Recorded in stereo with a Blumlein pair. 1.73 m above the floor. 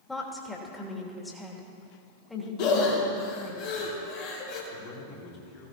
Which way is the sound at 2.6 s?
45° left.